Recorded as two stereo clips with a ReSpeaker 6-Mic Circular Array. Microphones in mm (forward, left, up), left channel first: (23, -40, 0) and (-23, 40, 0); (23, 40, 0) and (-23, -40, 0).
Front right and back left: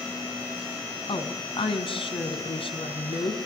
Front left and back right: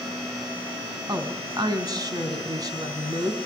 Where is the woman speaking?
75° right, 4 m.